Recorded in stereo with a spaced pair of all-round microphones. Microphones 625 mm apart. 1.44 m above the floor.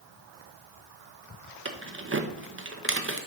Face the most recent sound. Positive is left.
turn(degrees=-20)  # may be behind; listen again after turning